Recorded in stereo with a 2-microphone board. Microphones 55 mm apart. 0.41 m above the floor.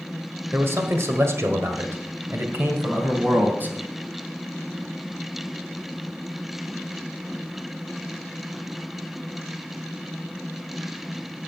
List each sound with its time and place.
0.5 s a man speaking: 50° right (ahead or behind), 1.7 m; by 3.8 s 35° right (ahead or behind), 3 m